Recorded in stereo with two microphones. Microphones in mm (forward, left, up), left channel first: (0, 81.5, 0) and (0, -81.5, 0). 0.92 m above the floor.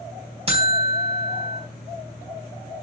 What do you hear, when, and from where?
0.5 s a buzzer: 35° right (ahead or behind), 3.5 m